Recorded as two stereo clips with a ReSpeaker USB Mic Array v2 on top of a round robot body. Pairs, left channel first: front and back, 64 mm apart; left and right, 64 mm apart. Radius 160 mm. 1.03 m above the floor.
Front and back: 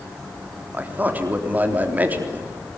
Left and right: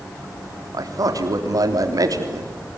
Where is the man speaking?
115° right, 3.5 m.